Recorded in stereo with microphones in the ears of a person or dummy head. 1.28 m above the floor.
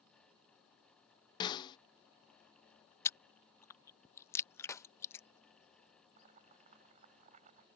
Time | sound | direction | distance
1.4 | a snare drum | 25° left (ahead or behind) | ?
3.0 | chewing | 20° left (ahead or behind) | ?
4.7 | a clap | 15° left (ahead or behind) | ?
6.2 | boiling | 40° right (ahead or behind) | ?